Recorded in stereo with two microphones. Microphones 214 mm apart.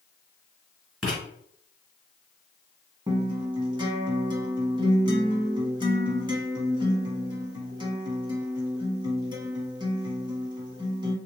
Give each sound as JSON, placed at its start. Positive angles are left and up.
{"t": 1.0, "sound": "writing", "side_deg": 0, "distance_m": 1.8}
{"t": 3.1, "sound": "a guitar", "side_deg": -20, "distance_m": 0.9}